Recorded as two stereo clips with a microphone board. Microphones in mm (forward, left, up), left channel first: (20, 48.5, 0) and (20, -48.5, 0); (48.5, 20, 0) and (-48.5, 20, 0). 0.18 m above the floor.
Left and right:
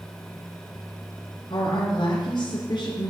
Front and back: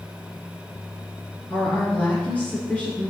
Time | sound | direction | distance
1.5 | a woman speaking | 70° left | 2.5 m